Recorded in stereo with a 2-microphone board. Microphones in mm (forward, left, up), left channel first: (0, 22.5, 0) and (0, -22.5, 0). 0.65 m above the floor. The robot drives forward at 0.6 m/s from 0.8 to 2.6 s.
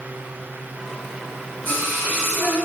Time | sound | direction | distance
1.6 | singing | 50° left (ahead or behind) | 1.5 m